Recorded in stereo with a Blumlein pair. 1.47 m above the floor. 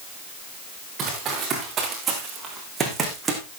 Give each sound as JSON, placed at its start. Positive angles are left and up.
{"t": 1.0, "sound": "running footsteps", "azimuth_deg": -25, "distance_m": 7.0}